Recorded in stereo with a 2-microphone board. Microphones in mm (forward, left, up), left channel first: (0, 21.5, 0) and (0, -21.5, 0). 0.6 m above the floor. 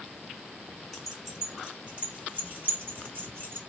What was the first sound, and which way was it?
Keys jangling, 5° left (ahead or behind).